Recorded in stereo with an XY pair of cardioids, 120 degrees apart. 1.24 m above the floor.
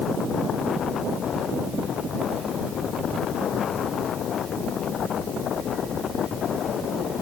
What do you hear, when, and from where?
Only background noise.